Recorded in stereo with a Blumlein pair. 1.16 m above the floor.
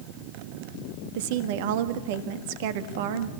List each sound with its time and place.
1.1 s a woman speaking: 50° right, 1.6 m